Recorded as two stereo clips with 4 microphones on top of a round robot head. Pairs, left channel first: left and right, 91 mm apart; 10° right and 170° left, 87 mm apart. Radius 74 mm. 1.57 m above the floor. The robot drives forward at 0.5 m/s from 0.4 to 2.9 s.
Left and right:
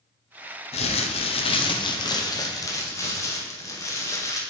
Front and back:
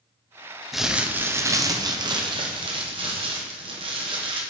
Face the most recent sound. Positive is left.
turn(degrees=145)